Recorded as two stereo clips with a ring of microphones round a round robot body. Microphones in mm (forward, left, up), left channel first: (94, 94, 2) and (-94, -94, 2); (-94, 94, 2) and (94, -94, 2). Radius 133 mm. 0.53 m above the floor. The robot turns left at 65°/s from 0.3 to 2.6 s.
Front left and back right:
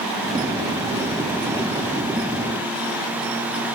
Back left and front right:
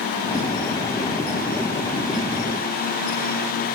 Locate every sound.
Only background noise.